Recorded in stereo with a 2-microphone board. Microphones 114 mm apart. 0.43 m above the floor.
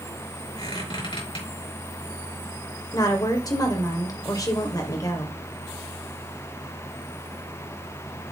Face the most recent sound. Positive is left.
turn(degrees=35)  # may be behind; listen again after turning